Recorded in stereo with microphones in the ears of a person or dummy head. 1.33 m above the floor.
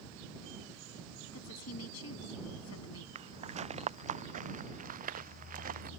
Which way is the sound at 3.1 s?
30° right (ahead or behind).